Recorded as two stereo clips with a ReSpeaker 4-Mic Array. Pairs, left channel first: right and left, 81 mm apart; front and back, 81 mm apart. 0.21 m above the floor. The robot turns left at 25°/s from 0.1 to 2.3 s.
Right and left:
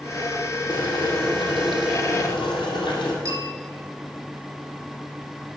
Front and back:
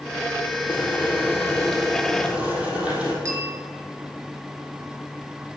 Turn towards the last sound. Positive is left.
turn(degrees=135)